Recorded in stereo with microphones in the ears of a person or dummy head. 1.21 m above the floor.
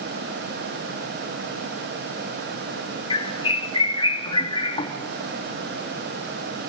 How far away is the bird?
About 3 m.